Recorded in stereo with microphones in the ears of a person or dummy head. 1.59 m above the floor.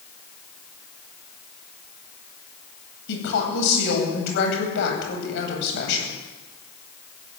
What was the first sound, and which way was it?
A woman speaking, 65° left (ahead or behind).